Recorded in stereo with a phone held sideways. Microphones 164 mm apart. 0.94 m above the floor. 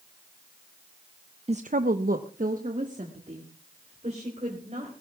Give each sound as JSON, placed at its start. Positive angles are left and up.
{"t": 1.5, "sound": "a woman speaking", "side_deg": -40, "distance_m": 0.5}